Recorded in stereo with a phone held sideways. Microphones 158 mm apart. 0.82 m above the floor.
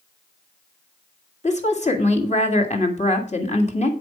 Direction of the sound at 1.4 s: 45° left (ahead or behind).